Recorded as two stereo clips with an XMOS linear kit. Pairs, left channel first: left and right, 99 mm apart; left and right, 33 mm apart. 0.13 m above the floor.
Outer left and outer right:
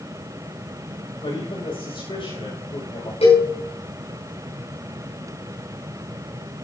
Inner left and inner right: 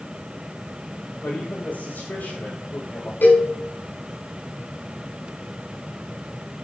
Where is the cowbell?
80° left, 8 m.